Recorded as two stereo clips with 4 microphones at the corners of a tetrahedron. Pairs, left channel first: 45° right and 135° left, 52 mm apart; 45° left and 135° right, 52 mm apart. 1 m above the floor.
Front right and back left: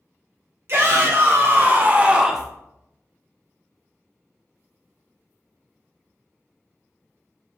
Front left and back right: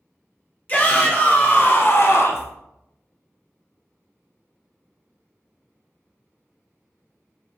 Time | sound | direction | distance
0.7 | a shout | 100° left | 1.4 m